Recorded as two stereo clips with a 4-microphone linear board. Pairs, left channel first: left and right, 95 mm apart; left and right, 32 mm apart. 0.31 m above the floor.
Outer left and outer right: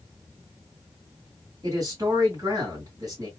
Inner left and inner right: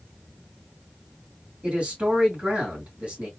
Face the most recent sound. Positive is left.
turn(degrees=-40)  # may be behind; listen again after turning